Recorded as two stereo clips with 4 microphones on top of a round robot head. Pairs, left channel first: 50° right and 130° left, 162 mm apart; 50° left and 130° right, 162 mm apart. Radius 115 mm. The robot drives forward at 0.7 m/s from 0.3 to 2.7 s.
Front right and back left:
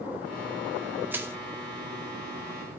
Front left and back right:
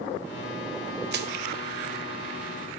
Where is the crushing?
150° right, 1.4 m; by 1.4 s 155° right, 1.5 m.